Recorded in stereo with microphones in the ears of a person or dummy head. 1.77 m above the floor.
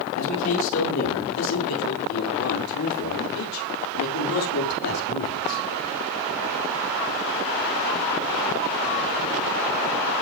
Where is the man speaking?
70° left (ahead or behind), 6.5 m; by 5.6 s 80° left, 6 m.